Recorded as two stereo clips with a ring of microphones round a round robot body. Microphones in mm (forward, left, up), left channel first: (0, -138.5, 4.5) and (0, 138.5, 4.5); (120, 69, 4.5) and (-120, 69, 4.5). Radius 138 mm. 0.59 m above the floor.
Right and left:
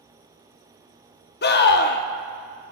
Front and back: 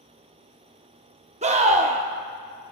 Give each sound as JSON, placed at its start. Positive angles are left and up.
{"t": 1.4, "sound": "a scream", "azimuth_deg": -125, "distance_m": 0.7}